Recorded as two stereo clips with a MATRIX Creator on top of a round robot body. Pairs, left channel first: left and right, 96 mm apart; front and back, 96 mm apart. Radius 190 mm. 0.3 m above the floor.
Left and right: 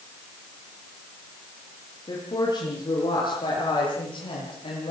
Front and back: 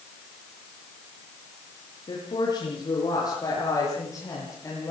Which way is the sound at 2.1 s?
45° left.